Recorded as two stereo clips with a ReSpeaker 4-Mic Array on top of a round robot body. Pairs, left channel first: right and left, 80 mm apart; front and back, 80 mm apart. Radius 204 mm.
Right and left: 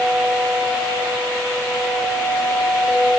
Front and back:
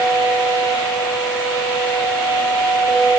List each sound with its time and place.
Only background noise.